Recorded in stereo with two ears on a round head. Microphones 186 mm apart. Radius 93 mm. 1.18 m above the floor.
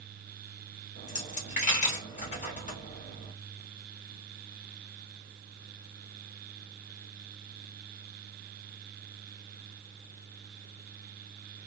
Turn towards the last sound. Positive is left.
turn(degrees=40)  # may be behind; listen again after turning